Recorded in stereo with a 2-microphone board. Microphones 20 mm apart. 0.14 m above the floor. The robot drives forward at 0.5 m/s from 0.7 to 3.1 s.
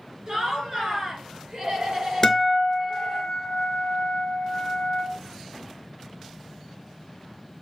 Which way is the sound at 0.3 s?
40° right (ahead or behind).